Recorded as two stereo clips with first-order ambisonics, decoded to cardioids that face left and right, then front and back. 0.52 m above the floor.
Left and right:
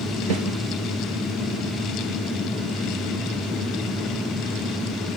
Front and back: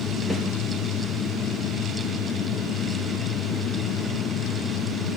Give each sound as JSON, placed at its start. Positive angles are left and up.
{"t": 0.3, "sound": "a snare drum", "azimuth_deg": -90, "distance_m": 3.5}